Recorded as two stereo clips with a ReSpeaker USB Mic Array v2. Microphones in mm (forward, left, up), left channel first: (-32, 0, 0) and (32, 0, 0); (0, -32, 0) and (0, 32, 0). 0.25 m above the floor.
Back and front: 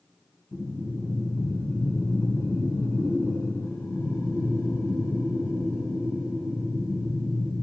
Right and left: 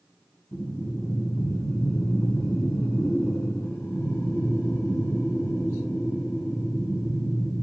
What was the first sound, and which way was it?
Breathing, 135° right.